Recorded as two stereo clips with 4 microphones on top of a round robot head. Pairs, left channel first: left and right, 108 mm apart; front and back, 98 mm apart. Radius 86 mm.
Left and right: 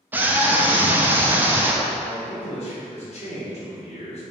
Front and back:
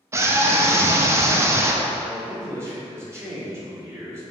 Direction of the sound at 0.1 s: 150° right.